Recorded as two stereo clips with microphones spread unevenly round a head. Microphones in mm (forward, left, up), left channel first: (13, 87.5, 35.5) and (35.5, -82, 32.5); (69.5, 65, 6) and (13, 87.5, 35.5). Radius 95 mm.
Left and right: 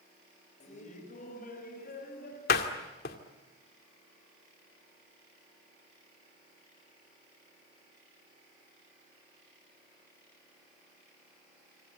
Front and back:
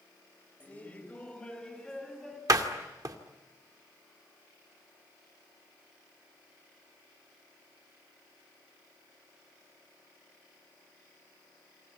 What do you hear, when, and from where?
0.6 s laughter: 45° left, 4.5 m; by 2.4 s 65° left, 6.5 m
2.5 s a door slam: 140° left, 2 m